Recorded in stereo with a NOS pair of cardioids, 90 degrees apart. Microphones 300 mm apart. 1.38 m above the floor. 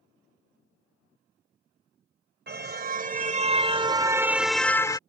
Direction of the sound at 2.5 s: 40° right.